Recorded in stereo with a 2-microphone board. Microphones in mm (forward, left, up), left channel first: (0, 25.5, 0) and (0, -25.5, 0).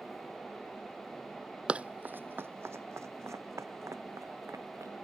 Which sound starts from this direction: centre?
Running footsteps, at 1.7 s.